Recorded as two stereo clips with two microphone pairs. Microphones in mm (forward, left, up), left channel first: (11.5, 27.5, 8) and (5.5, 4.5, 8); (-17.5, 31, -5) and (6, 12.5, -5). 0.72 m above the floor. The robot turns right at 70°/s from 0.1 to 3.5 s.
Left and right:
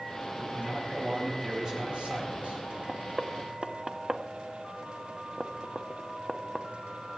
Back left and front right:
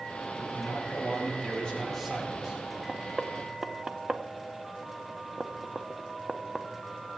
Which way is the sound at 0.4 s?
115° left.